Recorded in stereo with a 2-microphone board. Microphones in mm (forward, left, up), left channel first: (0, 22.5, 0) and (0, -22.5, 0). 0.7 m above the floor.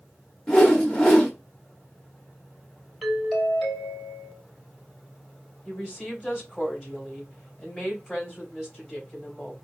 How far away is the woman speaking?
About 3.5 m.